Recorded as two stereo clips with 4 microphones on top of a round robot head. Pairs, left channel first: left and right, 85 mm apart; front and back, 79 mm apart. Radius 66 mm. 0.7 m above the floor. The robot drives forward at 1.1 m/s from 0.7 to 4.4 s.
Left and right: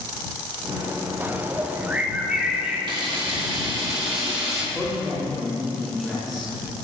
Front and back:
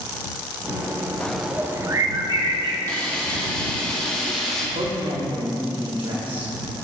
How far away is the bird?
About 0.8 m.